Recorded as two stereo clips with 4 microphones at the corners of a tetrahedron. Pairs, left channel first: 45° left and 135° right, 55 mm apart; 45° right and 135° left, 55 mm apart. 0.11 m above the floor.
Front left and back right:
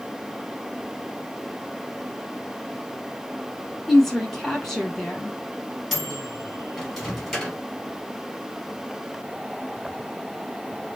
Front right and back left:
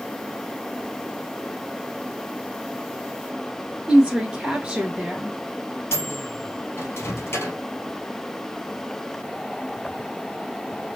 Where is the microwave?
35° right, 1.6 m.